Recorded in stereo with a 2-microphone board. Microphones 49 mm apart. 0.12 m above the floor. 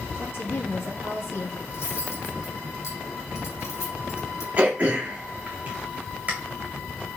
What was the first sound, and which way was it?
A woman speaking, 60° left (ahead or behind).